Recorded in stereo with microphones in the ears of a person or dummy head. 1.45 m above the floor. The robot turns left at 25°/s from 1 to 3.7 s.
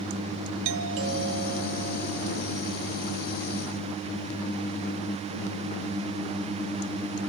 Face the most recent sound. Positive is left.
turn(degrees=-140)